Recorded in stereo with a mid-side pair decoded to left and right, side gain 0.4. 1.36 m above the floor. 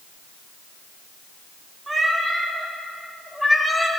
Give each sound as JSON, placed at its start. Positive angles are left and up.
{"t": 1.9, "sound": "a cat meowing", "azimuth_deg": -20, "distance_m": 1.9}